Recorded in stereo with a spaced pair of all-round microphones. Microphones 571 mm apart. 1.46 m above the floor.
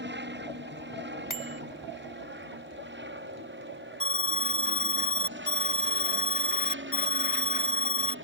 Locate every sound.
0.0 s an aircraft: 20° right (ahead or behind)
1.3 s a bicycle bell: 55° left (ahead or behind)
4.0 s an alarm: 20° left (ahead or behind)